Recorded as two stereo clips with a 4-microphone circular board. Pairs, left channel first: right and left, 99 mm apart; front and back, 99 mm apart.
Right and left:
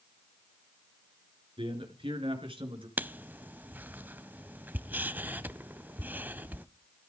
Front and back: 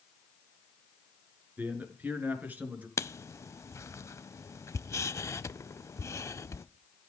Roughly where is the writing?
Ahead left.